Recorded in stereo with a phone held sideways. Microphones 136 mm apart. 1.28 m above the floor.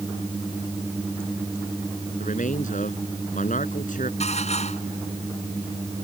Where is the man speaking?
70° left (ahead or behind).